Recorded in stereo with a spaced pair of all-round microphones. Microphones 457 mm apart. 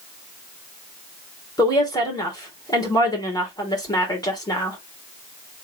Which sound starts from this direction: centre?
A woman speaking, at 1.6 s.